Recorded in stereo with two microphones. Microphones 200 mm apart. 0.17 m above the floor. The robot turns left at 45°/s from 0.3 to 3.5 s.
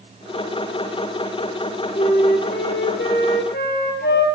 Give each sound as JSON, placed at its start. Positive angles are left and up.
{"t": 1.9, "sound": "a flute", "azimuth_deg": 135, "distance_m": 3.5}